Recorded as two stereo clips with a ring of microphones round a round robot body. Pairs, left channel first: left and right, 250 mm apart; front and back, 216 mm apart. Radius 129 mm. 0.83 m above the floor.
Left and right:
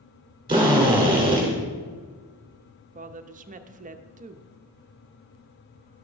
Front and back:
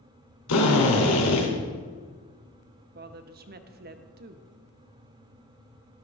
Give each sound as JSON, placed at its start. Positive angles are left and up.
{"t": 0.5, "sound": "a drill", "azimuth_deg": -20, "distance_m": 3.0}
{"t": 3.0, "sound": "a woman speaking", "azimuth_deg": -145, "distance_m": 0.8}